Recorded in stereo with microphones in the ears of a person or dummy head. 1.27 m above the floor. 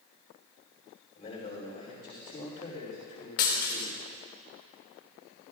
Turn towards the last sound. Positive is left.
turn(degrees=45)  # may be behind; listen again after turning